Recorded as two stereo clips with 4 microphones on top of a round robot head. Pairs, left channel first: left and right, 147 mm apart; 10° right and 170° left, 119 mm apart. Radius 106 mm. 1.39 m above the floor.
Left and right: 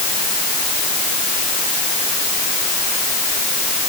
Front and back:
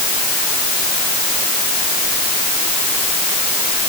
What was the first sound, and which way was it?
Only background noise.